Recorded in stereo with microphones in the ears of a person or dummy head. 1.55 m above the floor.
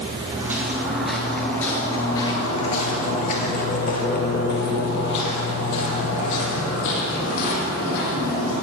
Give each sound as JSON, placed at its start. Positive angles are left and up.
{"t": 0.3, "sound": "footsteps", "side_deg": -15, "distance_m": 1.8}